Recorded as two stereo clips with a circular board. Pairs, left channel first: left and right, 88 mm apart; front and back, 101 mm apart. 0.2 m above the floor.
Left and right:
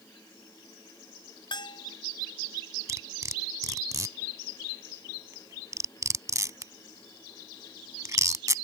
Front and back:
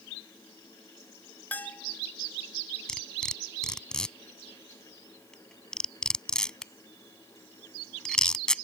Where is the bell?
70° left.